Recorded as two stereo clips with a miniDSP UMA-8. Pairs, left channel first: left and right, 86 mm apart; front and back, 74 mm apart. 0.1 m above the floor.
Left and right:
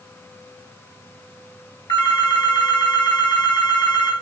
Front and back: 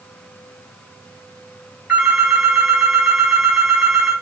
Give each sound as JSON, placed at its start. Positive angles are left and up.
{"t": 1.9, "sound": "a phone ringing", "azimuth_deg": 105, "distance_m": 5.0}